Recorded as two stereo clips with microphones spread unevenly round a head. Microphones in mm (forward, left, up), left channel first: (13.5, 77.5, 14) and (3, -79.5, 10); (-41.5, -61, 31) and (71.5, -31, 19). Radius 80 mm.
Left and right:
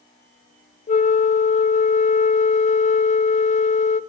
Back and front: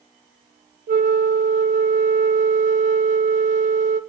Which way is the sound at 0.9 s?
35° left.